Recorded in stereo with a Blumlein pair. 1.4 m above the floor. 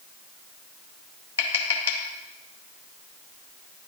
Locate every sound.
1.4 s tapping: 60° left, 0.8 m